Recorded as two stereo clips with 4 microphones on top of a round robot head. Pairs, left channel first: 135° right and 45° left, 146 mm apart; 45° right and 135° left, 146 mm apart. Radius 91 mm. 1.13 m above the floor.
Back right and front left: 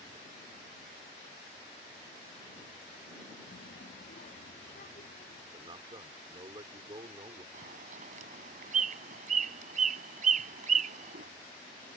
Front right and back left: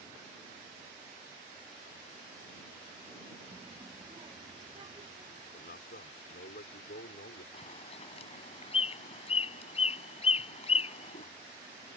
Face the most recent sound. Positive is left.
turn(degrees=5)